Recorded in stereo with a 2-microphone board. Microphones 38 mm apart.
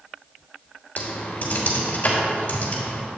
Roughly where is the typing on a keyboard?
Left.